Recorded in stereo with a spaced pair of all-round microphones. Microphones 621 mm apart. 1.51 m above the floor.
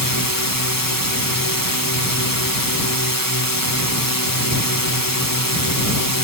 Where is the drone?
35° left (ahead or behind).